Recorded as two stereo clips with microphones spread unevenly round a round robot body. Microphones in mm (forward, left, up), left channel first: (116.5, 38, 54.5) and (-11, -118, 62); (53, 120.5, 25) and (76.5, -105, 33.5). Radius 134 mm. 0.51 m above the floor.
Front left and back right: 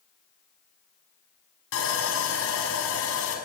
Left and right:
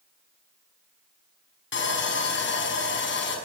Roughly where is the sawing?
Ahead left.